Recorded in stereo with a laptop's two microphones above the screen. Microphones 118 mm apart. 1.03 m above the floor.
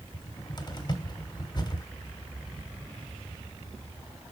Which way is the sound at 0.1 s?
35° left (ahead or behind).